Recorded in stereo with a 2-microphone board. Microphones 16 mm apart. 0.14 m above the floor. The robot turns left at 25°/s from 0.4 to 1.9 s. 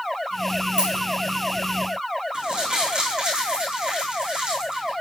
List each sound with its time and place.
0.8 s a dropped coin: 60° right (ahead or behind), 5 m; by 1.1 s 70° right (ahead or behind), 5 m
2.3 s crumpling: 65° right (ahead or behind), 7 m